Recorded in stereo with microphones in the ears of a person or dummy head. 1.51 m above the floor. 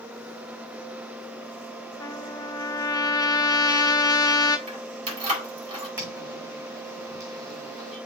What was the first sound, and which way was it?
A trumpet, 20° left (ahead or behind).